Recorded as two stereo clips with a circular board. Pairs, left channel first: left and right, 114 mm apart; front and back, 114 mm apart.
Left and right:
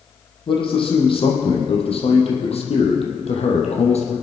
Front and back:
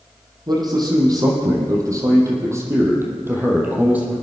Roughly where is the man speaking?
Behind left.